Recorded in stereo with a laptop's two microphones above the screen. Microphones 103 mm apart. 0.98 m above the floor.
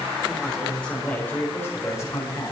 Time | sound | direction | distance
0.3 | a man speaking | centre (ahead or behind) | 4 m